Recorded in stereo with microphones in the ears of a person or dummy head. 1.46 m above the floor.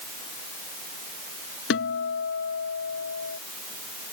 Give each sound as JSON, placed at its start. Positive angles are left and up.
{"t": 1.7, "sound": "a guitar", "side_deg": 70}